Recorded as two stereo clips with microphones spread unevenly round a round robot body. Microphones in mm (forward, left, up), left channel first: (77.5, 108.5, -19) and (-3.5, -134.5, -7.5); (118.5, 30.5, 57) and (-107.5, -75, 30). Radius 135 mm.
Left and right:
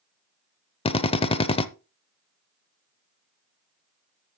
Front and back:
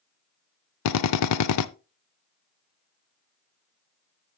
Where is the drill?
Straight ahead, 0.6 m.